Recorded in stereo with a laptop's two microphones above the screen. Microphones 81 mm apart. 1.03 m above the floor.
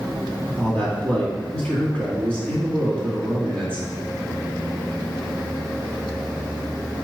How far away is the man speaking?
About 2 m.